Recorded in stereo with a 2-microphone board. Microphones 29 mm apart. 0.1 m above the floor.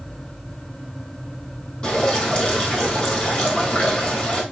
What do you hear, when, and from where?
1.8 s dripping: 35° left (ahead or behind), 3 m